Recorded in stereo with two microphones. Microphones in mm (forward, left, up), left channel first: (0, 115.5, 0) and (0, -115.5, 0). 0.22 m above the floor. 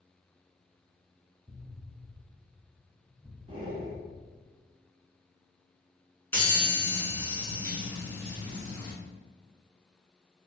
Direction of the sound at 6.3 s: 10° left (ahead or behind).